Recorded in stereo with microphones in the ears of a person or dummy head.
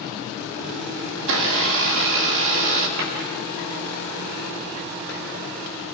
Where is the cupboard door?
75° right (ahead or behind), 5 m.